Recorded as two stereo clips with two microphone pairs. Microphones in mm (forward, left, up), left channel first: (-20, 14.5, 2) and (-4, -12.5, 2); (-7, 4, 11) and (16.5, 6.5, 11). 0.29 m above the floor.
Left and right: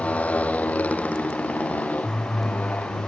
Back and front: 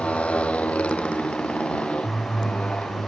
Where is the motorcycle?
160° left; by 3.1 s 150° left.